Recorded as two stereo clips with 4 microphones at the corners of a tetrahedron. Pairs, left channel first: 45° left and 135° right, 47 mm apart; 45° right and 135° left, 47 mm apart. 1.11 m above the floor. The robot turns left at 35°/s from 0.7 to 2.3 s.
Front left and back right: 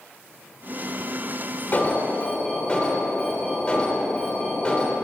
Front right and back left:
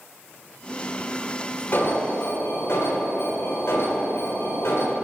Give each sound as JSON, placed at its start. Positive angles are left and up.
{"t": 1.7, "sound": "an alarm", "azimuth_deg": -5, "distance_m": 3.0}